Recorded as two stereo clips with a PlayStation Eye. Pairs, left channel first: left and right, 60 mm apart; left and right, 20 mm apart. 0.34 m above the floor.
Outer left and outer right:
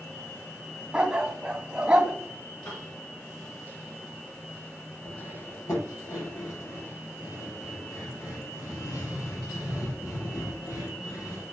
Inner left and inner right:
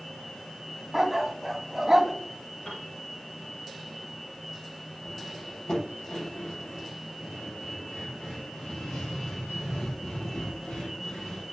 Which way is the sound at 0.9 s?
15° right (ahead or behind).